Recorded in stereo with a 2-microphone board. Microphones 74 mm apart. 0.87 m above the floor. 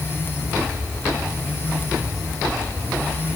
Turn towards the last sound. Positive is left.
No sound to turn to.